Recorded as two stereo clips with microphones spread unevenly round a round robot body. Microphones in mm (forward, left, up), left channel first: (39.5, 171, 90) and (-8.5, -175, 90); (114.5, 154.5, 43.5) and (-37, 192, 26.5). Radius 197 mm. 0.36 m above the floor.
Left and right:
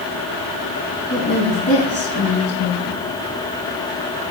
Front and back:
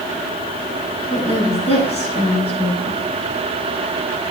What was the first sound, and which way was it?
A woman speaking, 35° left.